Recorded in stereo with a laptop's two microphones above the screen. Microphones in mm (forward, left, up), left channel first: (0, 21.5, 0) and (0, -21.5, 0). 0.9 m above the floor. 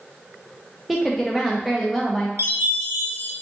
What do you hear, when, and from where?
0.9 s a woman speaking: centre (ahead or behind), 0.5 m
2.4 s a chime: 70° right (ahead or behind), 0.8 m